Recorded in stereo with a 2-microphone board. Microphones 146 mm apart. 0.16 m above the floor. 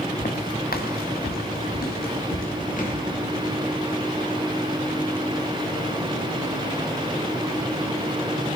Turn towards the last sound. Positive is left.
turn(degrees=60)  # may be behind; listen again after turning